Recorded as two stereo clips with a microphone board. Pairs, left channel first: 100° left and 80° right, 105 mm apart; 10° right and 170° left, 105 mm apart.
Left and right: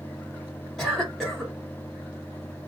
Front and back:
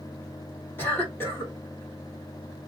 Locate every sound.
0.8 s a cough: 20° left, 1.5 m